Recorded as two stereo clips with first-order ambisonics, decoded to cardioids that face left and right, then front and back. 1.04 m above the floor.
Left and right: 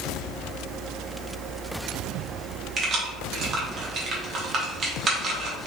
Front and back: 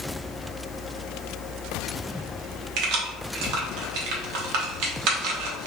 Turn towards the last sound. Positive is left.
turn(degrees=-150)